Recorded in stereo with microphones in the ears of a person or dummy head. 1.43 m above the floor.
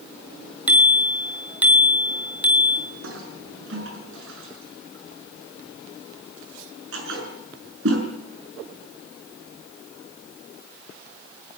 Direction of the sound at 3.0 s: 80° right.